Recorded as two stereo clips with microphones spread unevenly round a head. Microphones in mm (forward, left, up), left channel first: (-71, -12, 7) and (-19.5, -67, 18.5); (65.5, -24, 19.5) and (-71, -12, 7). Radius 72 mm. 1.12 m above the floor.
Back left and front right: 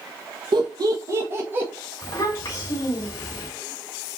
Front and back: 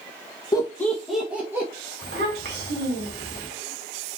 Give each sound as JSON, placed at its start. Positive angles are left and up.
{"t": 0.5, "sound": "laughter", "azimuth_deg": -70, "distance_m": 1.3}
{"t": 2.0, "sound": "a child speaking", "azimuth_deg": 170, "distance_m": 3.0}